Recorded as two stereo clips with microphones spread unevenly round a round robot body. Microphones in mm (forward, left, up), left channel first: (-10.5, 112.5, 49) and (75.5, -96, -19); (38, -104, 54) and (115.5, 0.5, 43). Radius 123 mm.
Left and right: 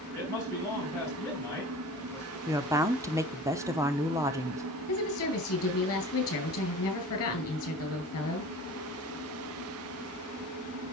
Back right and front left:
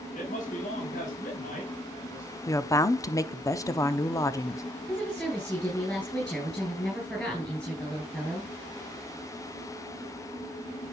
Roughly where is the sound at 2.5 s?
Right.